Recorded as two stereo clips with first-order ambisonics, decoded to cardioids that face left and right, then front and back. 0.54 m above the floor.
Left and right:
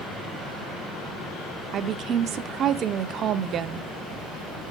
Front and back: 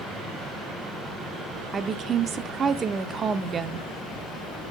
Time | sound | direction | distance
1.7 | a woman speaking | 125° right | 1.0 m